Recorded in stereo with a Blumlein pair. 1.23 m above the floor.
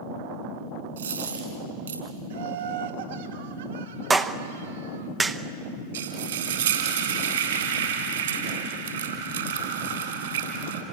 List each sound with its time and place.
1.0 s a dropped coin: 65° right, 5 m
2.3 s laughter: 60° right, 2.5 m
4.1 s a clap: 10° right, 0.9 m
5.9 s frying: 65° right, 3.5 m